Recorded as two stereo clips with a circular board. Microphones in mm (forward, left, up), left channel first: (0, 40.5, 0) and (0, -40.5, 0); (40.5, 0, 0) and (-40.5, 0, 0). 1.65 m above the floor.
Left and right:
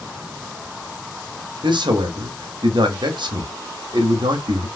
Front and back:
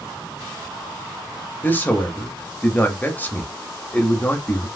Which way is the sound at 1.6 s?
70° right.